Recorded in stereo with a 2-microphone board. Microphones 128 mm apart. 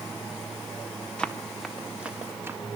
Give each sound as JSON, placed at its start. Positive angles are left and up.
{"t": 1.2, "sound": "running footsteps", "side_deg": 10, "distance_m": 2.5}